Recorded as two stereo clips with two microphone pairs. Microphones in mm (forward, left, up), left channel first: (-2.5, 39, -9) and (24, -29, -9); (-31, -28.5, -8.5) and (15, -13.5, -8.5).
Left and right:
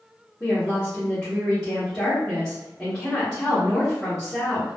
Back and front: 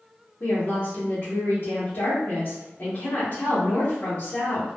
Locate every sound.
0.4 s a woman speaking: 170° right, 0.8 m